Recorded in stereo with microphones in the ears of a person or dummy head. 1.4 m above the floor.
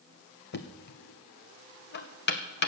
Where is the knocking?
50° left (ahead or behind), 0.9 m.